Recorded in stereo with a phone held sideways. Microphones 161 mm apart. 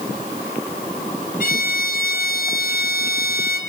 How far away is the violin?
About 3 m.